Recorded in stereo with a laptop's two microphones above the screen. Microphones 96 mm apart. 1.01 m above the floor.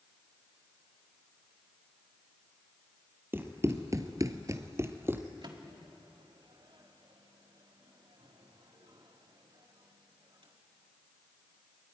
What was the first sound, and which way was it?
Running footsteps, 20° right (ahead or behind).